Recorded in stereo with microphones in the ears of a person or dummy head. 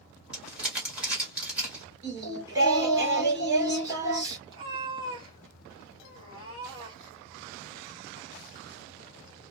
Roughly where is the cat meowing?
Right.